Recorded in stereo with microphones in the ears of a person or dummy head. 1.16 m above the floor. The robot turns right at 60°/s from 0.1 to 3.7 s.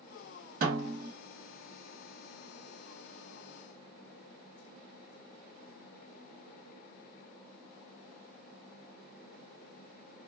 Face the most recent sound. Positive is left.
turn(degrees=70)